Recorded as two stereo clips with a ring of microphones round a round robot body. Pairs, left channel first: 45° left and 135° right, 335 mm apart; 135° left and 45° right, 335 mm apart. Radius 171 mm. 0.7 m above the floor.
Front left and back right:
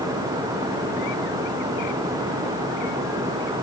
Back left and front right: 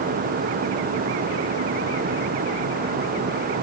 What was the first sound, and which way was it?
Only background noise.